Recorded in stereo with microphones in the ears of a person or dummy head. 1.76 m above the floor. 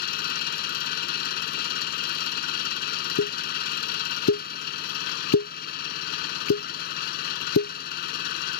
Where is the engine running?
50° left (ahead or behind).